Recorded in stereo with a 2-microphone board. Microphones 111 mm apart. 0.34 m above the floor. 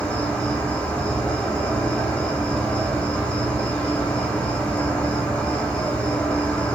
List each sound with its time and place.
0.0 s an insect: 15° left (ahead or behind), 0.7 m